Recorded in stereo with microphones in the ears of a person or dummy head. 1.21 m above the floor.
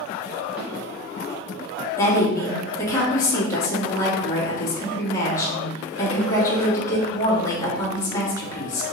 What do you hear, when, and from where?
0.6 s a snare drum: 10° right (ahead or behind), 1.5 m
2.0 s a woman speaking: 15° left (ahead or behind), 1.8 m